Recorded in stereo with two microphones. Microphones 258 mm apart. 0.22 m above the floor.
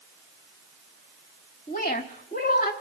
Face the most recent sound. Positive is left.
turn(degrees=40)  # may be behind; listen again after turning